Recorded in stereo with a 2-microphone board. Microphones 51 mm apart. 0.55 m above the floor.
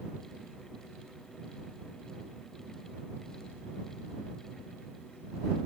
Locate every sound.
Only background noise.